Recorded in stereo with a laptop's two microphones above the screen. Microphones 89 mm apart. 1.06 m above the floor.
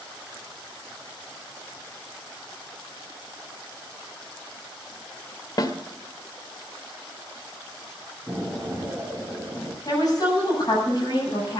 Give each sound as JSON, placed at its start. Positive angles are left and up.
{"t": 5.6, "sound": "a snare drum", "side_deg": 45, "distance_m": 1.6}
{"t": 8.3, "sound": "an explosion", "side_deg": 5, "distance_m": 5.5}
{"t": 9.8, "sound": "a woman speaking", "side_deg": 45, "distance_m": 7.5}